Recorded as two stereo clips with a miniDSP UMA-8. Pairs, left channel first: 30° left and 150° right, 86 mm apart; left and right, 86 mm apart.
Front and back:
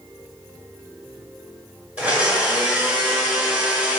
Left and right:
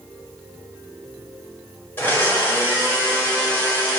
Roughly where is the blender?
Behind left.